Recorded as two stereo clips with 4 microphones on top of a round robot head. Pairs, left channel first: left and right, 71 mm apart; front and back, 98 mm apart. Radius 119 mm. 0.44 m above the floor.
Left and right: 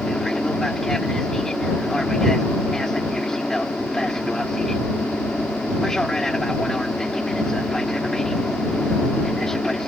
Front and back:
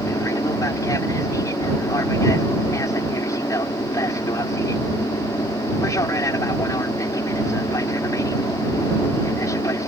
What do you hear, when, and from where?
0.0 s an aircraft: 10° left